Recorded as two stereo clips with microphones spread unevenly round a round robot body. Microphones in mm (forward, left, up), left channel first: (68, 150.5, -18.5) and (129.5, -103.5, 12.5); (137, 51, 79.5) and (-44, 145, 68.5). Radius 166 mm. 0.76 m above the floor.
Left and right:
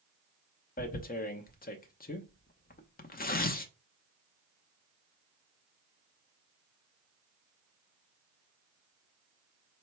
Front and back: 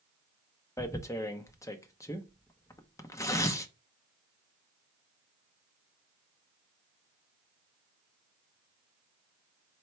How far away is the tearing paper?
About 0.7 m.